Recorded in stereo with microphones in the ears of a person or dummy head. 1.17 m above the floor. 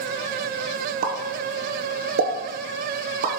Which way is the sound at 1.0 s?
40° right (ahead or behind).